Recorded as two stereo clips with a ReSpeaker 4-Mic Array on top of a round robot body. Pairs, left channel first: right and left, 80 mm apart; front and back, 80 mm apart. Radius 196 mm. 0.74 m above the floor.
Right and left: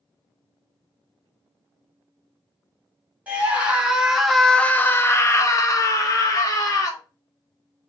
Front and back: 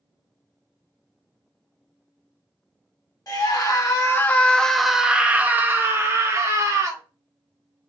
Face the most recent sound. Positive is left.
turn(degrees=-130)